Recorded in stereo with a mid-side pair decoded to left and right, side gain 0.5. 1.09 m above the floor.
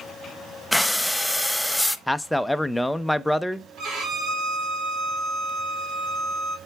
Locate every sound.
0.7 s breathing: straight ahead, 0.5 m
2.1 s a man speaking: 5° left, 0.6 m
3.8 s a violin: 65° right, 2.5 m